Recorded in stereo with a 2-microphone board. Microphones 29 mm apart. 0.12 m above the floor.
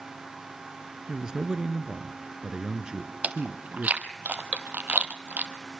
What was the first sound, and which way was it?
A man speaking, 25° right (ahead or behind).